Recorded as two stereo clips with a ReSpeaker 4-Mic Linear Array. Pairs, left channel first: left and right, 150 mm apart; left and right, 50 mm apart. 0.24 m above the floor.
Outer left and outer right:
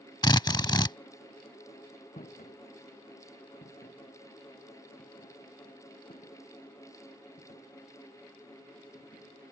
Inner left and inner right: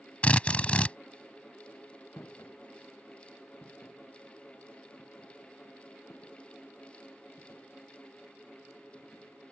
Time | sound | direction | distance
0.2 | a drill | 30° left (ahead or behind) | ?
2.2 | footsteps | 55° left (ahead or behind) | ?